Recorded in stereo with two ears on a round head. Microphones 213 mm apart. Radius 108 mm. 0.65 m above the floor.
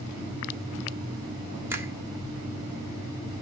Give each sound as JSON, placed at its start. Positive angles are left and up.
{"t": 1.7, "sound": "a finger snap", "side_deg": -10, "distance_m": 1.5}